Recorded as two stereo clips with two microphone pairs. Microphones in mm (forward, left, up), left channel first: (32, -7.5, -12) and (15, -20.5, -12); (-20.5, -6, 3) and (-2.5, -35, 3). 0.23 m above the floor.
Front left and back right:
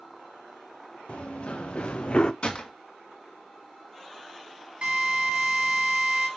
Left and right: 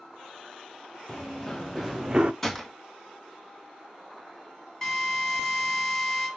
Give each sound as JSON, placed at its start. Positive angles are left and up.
{"t": 1.1, "sound": "running footsteps", "azimuth_deg": 50, "distance_m": 2.0}
{"t": 2.4, "sound": "a gunshot", "azimuth_deg": 40, "distance_m": 2.0}
{"t": 4.8, "sound": "a drill", "azimuth_deg": -160, "distance_m": 3.5}